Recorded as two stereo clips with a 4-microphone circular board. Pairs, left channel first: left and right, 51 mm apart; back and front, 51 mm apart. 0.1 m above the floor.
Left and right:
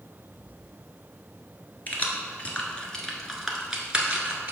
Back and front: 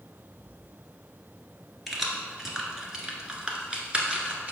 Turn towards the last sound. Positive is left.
turn(degrees=-45)